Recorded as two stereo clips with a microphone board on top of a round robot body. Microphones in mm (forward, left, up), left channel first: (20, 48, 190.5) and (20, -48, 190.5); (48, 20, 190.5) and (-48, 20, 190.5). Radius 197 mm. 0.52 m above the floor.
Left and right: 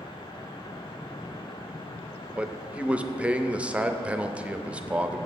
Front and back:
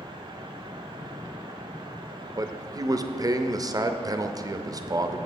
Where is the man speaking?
160° right, 0.9 m.